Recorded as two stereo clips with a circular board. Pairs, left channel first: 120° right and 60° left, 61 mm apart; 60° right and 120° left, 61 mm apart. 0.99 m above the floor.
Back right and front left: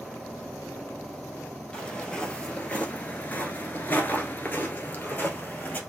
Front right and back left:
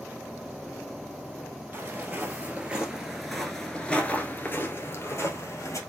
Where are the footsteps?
170° left, 1.6 m; by 5.8 s 60° right, 1.6 m.